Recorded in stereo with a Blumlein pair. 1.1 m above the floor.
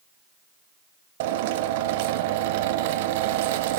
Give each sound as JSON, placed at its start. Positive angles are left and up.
{"t": 1.2, "sound": "a drill", "azimuth_deg": -50, "distance_m": 1.7}